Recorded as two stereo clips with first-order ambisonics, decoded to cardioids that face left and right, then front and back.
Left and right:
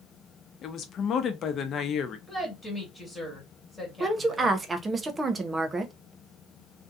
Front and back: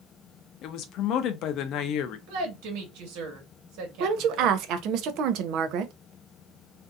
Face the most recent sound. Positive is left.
turn(degrees=-160)